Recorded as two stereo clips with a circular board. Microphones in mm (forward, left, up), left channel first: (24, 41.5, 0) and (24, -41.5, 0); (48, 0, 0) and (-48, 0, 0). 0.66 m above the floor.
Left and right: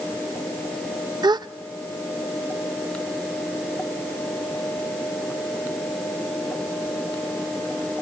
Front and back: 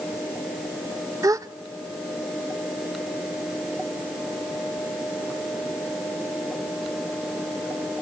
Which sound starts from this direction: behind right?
A gasp, at 1.2 s.